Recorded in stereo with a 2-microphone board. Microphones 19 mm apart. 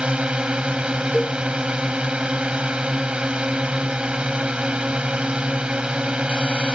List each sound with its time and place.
0.0 s a drone: 60° right (ahead or behind)
1.1 s a cowbell: 15° left (ahead or behind)